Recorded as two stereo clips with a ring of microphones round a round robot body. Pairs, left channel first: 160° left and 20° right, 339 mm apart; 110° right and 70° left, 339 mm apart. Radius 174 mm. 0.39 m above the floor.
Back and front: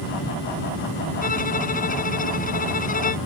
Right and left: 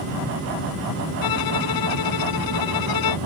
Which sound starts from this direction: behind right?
A violin, at 1.2 s.